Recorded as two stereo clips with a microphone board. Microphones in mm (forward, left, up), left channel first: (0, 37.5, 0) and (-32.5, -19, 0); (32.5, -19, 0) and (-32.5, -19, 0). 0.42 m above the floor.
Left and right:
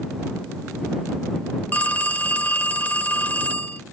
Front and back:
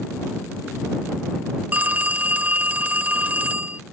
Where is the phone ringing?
120° left.